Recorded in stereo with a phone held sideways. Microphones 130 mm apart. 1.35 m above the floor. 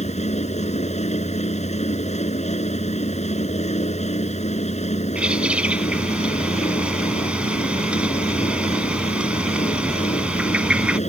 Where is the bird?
10° right (ahead or behind).